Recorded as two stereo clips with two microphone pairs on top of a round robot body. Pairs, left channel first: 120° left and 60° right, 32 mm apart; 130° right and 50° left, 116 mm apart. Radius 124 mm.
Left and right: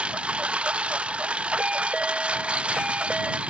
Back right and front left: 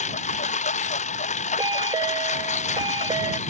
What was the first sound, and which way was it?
A lawn mower, 115° right.